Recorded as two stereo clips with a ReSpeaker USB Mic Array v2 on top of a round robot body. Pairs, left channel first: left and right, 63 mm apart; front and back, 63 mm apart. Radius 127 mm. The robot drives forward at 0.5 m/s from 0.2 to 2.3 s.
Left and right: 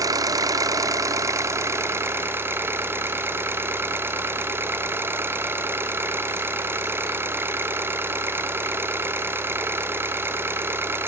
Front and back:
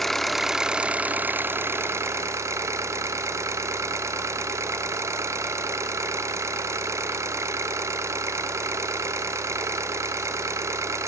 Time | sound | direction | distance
0.0 | an engine running | 85° right | 0.9 m